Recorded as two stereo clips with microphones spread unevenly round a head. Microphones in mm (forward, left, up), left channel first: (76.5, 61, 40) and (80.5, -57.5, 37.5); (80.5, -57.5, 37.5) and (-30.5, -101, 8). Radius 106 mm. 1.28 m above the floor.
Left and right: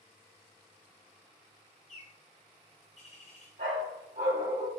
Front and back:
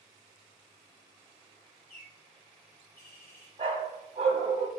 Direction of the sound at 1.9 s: 70° left.